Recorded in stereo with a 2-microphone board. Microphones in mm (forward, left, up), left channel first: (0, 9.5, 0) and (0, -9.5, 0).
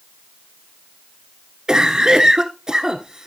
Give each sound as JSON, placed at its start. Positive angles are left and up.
{"t": 1.7, "sound": "a cough", "side_deg": -35, "distance_m": 1.2}